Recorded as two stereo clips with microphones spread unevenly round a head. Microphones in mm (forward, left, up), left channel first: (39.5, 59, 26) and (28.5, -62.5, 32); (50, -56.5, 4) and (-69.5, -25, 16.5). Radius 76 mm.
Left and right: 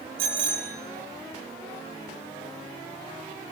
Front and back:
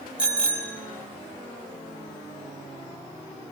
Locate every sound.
0.2 s a bicycle bell: 115° right, 5 m